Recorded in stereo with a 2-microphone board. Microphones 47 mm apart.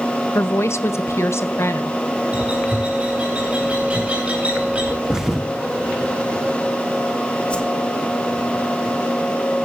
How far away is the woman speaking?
About 1.0 m.